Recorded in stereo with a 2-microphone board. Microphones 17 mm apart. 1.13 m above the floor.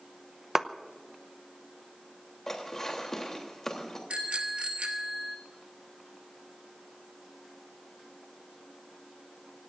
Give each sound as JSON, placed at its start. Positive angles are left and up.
{"t": 0.6, "sound": "a clap", "side_deg": -30, "distance_m": 0.7}
{"t": 2.5, "sound": "dishes clattering", "side_deg": 30, "distance_m": 3.0}
{"t": 4.1, "sound": "a bicycle bell", "side_deg": -70, "distance_m": 2.5}